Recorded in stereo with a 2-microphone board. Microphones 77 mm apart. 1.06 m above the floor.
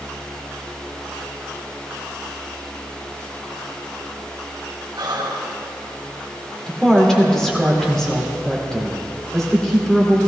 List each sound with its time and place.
5.0 s breathing: 70° right (ahead or behind), 2.0 m
6.7 s a woman speaking: 5° left (ahead or behind), 2.5 m